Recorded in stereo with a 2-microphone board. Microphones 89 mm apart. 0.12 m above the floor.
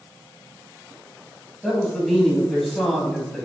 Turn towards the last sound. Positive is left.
turn(degrees=5)  # may be behind; listen again after turning